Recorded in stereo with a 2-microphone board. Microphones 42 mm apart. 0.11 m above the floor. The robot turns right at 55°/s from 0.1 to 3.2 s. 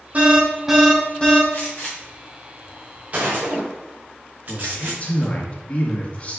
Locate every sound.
0.1 s an alarm: 35° right, 3 m; by 1.4 s 35° left, 3 m
1.5 s a gunshot: 50° left (ahead or behind), 3 m; by 5.3 s 45° right (ahead or behind), 3 m
4.5 s a man speaking: 35° left (ahead or behind), 2 m